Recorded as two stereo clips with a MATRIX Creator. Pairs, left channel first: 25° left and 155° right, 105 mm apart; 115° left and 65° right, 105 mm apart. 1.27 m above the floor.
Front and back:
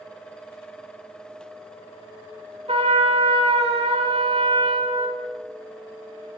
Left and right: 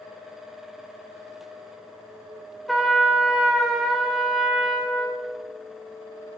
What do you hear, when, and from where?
2.7 s a trumpet: 160° right, 2 m